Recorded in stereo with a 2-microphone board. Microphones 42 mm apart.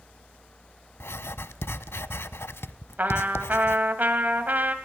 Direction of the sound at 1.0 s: 75° left (ahead or behind).